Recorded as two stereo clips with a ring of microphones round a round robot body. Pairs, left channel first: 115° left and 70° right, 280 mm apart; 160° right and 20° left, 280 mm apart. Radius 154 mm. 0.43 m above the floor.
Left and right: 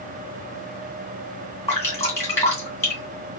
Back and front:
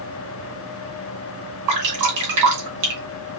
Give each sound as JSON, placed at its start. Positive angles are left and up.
{"t": 1.7, "sound": "dripping", "azimuth_deg": 30, "distance_m": 2.0}